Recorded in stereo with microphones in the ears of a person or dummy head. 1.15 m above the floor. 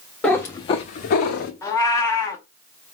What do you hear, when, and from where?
0.2 s a cat meowing: centre (ahead or behind), 0.6 m; by 1.5 s 50° left (ahead or behind), 1.0 m
1.6 s a cat meowing: 15° left (ahead or behind), 0.9 m